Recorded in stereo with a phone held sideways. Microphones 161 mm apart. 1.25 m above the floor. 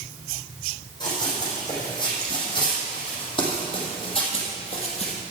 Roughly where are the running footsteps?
Left.